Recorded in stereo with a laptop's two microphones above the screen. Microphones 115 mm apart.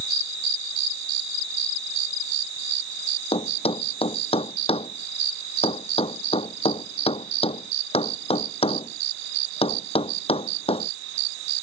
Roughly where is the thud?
Left.